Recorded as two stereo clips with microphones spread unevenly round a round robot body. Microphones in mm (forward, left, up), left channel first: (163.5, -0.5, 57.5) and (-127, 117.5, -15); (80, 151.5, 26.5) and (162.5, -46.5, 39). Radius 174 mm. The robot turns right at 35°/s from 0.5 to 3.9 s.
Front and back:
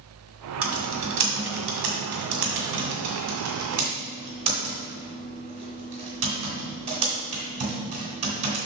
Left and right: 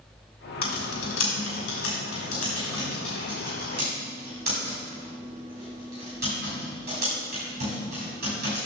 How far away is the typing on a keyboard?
About 2.0 m.